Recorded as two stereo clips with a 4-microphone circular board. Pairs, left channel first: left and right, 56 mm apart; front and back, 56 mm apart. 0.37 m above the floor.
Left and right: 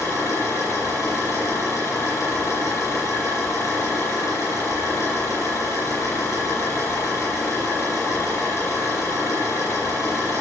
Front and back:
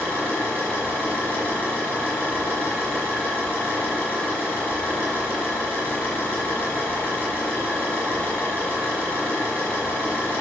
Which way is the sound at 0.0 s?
60° left.